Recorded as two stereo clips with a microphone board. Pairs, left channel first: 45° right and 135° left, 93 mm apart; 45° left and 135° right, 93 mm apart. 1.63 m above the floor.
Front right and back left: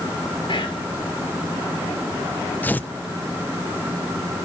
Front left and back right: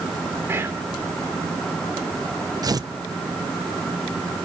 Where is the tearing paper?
110° right, 0.8 m.